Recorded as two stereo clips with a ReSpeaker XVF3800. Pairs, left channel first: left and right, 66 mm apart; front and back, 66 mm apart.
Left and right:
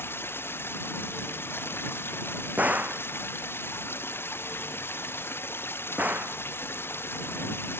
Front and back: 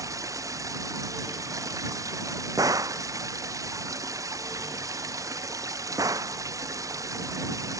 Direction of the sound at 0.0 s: 145° left.